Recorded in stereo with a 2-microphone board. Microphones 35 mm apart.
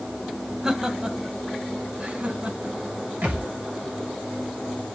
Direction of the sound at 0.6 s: 20° right (ahead or behind).